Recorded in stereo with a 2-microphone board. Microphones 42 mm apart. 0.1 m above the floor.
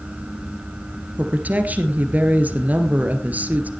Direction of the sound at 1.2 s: 40° right (ahead or behind).